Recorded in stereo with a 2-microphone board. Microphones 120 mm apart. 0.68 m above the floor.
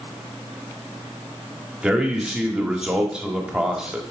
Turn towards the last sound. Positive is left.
turn(degrees=-5)  # may be behind; listen again after turning